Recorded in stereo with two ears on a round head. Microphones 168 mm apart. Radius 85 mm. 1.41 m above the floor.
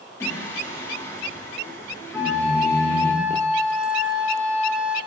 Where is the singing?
15° left (ahead or behind), 3.5 m.